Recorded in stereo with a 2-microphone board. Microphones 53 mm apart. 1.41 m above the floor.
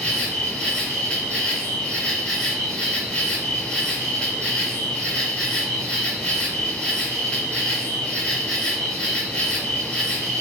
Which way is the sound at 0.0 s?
15° left (ahead or behind).